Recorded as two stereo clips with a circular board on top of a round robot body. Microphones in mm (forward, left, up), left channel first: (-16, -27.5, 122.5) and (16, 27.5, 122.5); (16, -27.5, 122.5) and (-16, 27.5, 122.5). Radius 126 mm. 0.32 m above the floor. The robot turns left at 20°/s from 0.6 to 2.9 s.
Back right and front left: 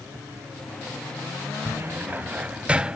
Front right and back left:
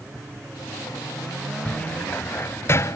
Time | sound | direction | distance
1.6 | a cupboard door | 10° left | ?